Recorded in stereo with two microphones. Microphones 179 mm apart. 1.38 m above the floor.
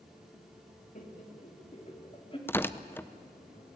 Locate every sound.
0.9 s laughter: 50° left (ahead or behind), 3 m; by 2.4 s 30° left (ahead or behind), 3.5 m
2.5 s tearing paper: 10° left (ahead or behind), 0.6 m